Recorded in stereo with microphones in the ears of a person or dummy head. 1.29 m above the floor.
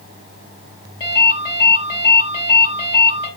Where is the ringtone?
25° left (ahead or behind), 4.5 m.